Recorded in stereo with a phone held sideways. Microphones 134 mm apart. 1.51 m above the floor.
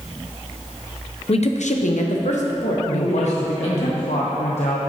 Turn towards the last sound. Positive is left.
turn(degrees=65)  # may be behind; listen again after turning